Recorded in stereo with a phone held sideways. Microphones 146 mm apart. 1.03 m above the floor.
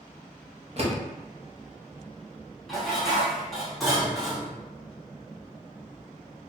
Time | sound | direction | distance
0.8 | a door slam | 45° right (ahead or behind) | 0.8 m
2.7 | dishes clattering | centre (ahead or behind) | 1.1 m